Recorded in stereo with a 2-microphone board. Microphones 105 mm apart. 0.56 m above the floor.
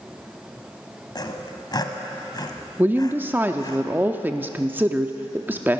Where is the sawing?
40° left (ahead or behind), 1.2 m.